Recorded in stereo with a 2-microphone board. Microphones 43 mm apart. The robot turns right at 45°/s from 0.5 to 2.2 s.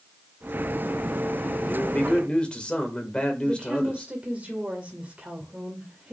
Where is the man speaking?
40° left (ahead or behind), 1.9 m; by 4.1 s 25° left (ahead or behind), 1.9 m.